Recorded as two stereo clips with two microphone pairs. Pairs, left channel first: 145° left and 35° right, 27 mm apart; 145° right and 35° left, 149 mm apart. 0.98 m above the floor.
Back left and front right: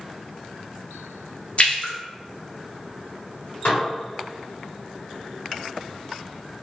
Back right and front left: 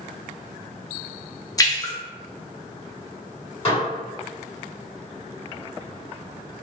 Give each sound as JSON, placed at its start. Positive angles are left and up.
{"t": 1.6, "sound": "a splash", "azimuth_deg": 155, "distance_m": 0.6}
{"t": 3.6, "sound": "dishes clattering", "azimuth_deg": 160, "distance_m": 1.6}